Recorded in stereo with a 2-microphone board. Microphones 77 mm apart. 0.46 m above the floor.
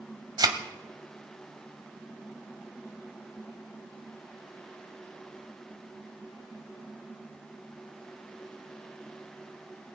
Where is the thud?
60° right (ahead or behind), 1.3 m.